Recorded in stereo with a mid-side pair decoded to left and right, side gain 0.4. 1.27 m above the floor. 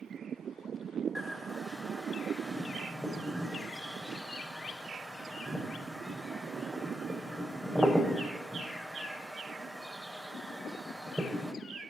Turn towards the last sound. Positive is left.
turn(degrees=-5)